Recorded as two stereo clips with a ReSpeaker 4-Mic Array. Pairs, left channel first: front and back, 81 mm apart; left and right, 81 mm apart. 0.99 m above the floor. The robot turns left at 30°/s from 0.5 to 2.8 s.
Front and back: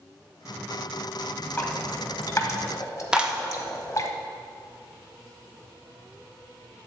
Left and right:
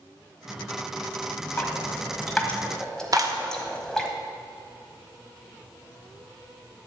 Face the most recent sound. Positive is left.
turn(degrees=-105)